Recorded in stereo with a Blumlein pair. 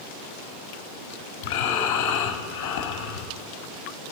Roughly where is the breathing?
Ahead left.